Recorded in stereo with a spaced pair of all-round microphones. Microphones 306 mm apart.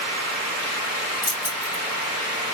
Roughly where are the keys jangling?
Left.